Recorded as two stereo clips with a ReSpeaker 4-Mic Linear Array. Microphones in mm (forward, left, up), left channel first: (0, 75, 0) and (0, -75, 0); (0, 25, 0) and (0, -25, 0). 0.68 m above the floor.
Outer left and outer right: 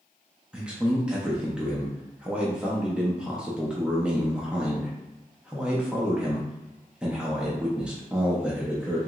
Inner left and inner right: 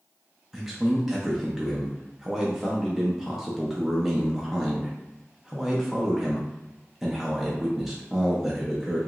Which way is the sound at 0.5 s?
5° right (ahead or behind).